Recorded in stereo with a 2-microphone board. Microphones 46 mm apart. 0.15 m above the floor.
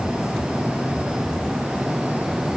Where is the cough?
I don't hear a cough.